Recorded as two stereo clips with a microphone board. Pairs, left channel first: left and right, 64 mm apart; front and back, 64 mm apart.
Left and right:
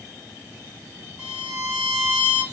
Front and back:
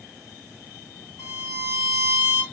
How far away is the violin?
About 1.8 m.